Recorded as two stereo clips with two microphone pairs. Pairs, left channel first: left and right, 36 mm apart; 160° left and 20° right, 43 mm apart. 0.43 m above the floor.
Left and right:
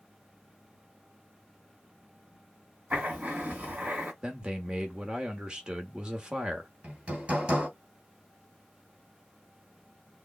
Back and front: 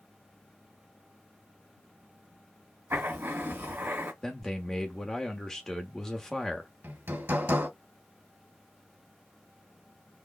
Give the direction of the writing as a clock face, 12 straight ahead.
2 o'clock.